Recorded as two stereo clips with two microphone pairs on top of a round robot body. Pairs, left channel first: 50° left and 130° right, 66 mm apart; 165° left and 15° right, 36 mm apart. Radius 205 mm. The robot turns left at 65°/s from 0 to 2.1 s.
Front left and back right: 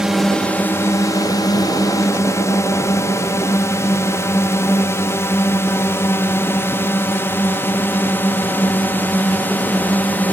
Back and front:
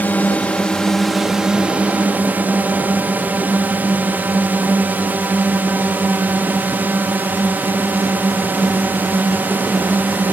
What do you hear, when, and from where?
0.0 s a drone: 150° left; by 10.3 s 15° right